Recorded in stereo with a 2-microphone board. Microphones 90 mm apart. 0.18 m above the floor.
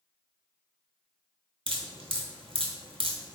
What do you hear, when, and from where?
1.7 s dripping: 75° right (ahead or behind), 0.8 m